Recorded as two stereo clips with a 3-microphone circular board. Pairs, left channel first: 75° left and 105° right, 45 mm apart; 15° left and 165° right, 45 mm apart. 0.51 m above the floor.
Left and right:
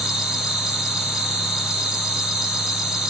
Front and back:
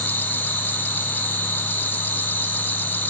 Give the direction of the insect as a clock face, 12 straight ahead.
1 o'clock.